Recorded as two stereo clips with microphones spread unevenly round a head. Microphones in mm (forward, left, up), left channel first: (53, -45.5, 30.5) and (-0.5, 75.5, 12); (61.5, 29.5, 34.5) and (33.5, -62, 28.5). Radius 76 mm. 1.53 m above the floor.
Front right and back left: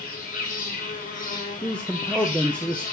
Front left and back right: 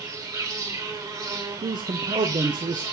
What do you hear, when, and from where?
0.0 s an insect: 65° right, 1.9 m
1.6 s a man speaking: 150° right, 0.6 m